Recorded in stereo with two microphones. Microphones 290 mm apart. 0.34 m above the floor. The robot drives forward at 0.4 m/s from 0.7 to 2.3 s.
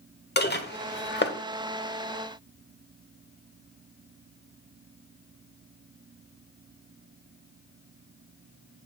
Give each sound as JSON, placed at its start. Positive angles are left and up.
{"t": 0.4, "sound": "dishes clattering", "side_deg": 35, "distance_m": 0.8}